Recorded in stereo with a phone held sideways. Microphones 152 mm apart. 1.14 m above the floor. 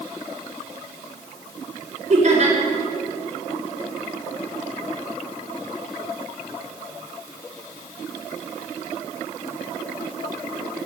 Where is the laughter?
50° right (ahead or behind), 4.5 m.